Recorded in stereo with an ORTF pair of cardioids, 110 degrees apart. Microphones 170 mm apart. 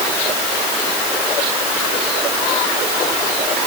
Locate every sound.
Only background noise.